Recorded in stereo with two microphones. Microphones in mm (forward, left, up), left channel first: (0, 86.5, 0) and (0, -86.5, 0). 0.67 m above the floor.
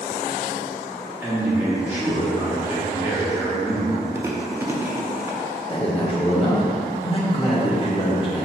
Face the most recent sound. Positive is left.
turn(degrees=30)  # may be behind; listen again after turning